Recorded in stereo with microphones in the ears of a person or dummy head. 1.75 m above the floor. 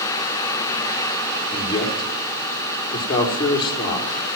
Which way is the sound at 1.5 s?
30° left (ahead or behind).